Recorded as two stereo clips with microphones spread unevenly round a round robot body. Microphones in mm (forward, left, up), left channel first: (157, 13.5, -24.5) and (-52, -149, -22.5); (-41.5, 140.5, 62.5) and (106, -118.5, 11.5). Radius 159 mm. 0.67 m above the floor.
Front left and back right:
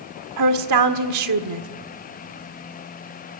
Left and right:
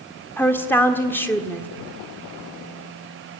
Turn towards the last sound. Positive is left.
turn(degrees=-155)